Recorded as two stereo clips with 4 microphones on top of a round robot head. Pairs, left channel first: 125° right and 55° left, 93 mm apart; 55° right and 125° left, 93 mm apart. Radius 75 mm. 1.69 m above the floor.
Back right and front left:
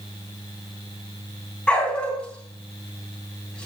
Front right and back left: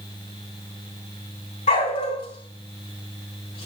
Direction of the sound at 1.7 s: 45° right.